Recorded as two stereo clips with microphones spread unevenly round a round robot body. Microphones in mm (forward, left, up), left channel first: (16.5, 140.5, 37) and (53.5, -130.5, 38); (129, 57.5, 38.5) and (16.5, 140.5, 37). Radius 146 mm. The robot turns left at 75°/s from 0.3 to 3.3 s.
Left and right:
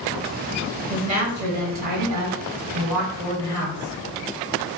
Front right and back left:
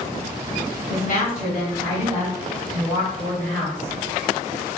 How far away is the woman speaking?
About 1.7 m.